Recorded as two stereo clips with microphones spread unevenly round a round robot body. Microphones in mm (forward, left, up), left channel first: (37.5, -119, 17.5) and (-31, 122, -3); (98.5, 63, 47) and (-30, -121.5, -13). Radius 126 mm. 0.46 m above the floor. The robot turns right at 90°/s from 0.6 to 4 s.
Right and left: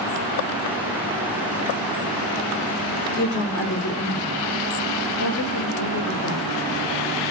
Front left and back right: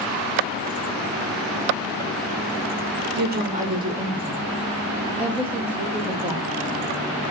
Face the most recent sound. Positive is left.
turn(degrees=-55)